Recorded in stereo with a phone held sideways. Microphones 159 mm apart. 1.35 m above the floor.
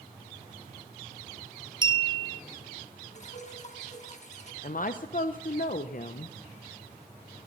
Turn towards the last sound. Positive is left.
turn(degrees=60)  # may be behind; listen again after turning